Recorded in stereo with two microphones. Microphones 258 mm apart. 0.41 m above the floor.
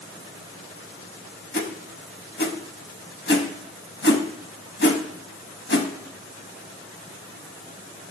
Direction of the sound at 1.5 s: 45° left (ahead or behind).